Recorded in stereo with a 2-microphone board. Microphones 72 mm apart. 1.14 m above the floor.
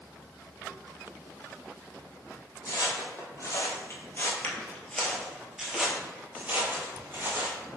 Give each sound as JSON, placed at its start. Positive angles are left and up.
{"t": 2.6, "sound": "footsteps", "side_deg": 50, "distance_m": 1.7}